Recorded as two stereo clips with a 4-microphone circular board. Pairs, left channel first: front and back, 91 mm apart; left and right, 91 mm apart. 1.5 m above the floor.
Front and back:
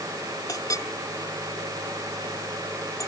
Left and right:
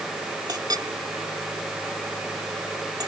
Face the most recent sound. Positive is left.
turn(degrees=-50)